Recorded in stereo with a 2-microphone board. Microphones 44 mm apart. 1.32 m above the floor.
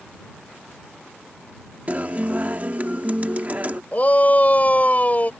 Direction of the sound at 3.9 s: 35° left (ahead or behind).